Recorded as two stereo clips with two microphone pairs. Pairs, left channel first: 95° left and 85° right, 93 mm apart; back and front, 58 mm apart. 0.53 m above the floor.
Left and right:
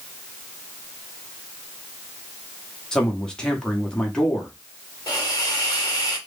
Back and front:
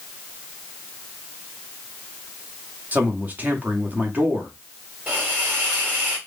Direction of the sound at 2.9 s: 15° left.